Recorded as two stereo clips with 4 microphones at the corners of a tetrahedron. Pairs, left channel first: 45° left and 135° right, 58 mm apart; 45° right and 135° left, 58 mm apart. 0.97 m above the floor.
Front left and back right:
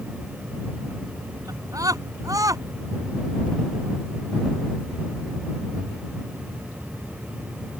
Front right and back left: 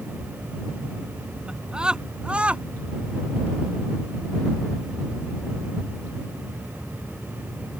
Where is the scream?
145° right; by 2.6 s 155° right.